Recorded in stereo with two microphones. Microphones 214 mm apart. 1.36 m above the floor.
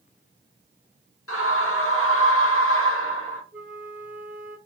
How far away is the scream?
About 1.1 m.